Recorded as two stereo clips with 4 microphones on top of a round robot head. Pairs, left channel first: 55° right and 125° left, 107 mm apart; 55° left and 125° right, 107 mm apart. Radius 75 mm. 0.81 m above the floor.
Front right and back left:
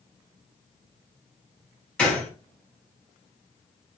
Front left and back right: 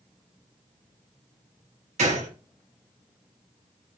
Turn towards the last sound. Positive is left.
turn(degrees=-135)